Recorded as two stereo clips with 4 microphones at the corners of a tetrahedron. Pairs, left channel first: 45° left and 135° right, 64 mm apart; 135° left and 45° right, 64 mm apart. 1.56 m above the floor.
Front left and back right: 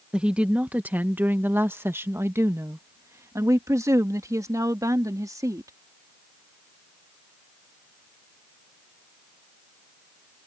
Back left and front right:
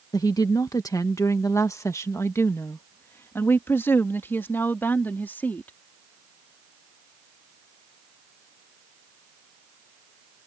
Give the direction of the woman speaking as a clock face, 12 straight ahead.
7 o'clock.